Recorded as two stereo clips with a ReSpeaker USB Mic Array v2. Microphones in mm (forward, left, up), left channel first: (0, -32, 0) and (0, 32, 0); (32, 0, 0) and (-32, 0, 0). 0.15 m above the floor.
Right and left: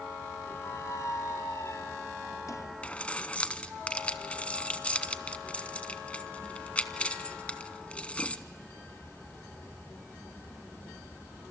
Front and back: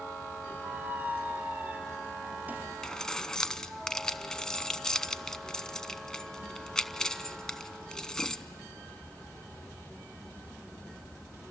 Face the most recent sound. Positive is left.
turn(degrees=-60)